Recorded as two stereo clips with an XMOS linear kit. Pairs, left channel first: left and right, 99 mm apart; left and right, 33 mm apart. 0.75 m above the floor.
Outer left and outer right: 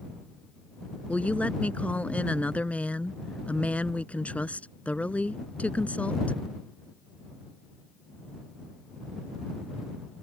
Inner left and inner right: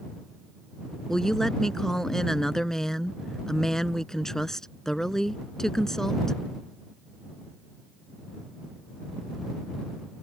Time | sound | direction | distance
1.1 | a woman speaking | 15° left (ahead or behind) | ?